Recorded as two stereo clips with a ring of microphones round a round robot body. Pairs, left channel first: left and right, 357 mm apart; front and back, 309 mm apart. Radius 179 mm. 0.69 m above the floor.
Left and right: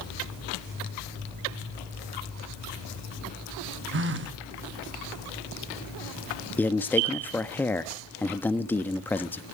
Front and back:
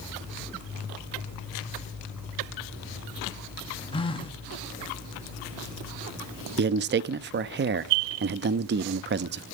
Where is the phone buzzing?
65° right, 1.3 m.